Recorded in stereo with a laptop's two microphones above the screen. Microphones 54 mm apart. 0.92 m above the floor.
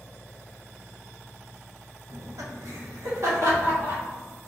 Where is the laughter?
70° right (ahead or behind), 0.7 m.